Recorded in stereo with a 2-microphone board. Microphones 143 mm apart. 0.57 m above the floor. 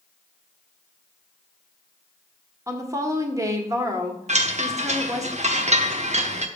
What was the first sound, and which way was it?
A woman speaking, 20° right (ahead or behind).